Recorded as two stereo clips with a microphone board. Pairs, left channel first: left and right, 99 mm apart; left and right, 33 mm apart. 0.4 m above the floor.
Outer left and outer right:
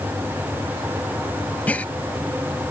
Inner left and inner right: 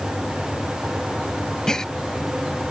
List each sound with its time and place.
1.7 s a gasp: 15° left (ahead or behind)